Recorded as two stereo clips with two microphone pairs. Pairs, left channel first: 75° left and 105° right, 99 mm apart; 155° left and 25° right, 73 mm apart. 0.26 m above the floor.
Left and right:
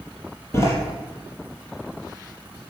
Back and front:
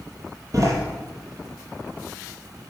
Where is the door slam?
15° left, 4.5 m.